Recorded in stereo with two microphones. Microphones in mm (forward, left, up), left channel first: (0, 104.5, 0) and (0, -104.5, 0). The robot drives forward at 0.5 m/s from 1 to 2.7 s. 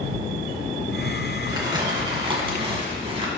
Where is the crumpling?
20° right (ahead or behind), 2.5 m; by 3.3 s 30° right (ahead or behind), 1.7 m.